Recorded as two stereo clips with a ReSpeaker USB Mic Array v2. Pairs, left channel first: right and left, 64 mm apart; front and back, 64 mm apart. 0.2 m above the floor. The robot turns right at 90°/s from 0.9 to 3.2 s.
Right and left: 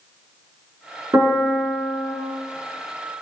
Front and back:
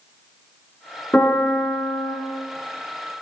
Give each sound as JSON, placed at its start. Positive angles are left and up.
{"t": 1.1, "sound": "a piano", "azimuth_deg": 60, "distance_m": 1.0}